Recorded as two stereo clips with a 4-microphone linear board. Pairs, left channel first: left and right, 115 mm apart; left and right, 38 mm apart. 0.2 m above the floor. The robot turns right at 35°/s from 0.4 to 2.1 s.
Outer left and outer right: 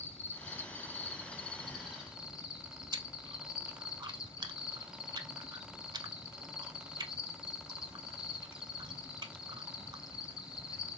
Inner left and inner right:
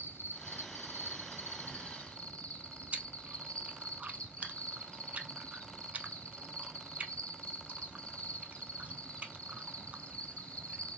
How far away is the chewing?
About 0.5 m.